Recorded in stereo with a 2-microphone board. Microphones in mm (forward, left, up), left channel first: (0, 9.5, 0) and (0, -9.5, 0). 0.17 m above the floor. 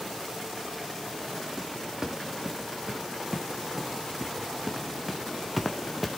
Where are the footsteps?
30° right (ahead or behind), 3.5 m; by 6.1 s 5° right (ahead or behind), 1.2 m.